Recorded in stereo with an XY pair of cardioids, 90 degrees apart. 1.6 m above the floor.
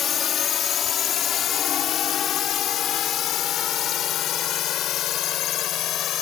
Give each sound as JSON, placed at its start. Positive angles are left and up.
{"t": 0.0, "sound": "a drone", "azimuth_deg": 60}